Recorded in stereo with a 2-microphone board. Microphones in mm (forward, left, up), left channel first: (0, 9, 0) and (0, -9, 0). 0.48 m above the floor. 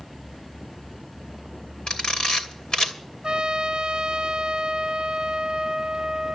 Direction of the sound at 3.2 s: 60° right (ahead or behind).